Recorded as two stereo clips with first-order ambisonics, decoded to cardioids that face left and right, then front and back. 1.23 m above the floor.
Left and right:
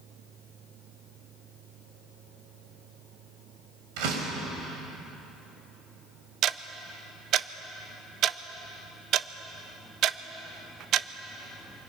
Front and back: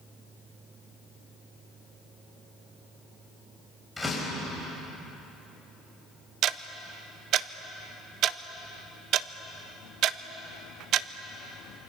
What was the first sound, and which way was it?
A door slam, 90° right.